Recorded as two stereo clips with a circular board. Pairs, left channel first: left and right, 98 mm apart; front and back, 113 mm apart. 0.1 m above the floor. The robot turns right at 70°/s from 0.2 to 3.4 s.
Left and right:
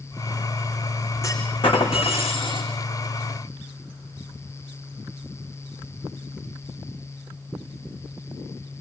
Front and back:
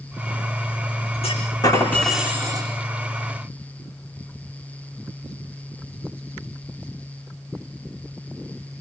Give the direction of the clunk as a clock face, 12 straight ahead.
11 o'clock.